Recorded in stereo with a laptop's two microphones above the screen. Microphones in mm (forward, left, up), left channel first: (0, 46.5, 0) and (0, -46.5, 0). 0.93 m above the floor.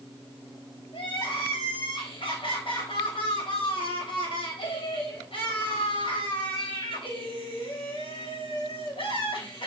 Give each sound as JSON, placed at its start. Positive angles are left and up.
{"t": 0.9, "sound": "crying", "side_deg": 65, "distance_m": 3.5}